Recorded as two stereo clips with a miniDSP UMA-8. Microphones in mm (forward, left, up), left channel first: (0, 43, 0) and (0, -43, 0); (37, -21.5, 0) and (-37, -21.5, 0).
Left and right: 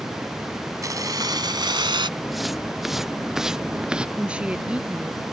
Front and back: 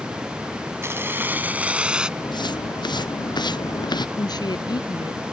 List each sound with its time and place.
0.8 s keys jangling: 130° right; by 2.1 s 100° right
2.2 s footsteps: straight ahead; by 4.1 s 10° right
4.2 s a woman speaking: 15° right